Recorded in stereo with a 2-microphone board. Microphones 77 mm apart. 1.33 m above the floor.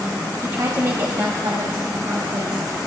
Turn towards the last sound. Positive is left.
turn(degrees=-85)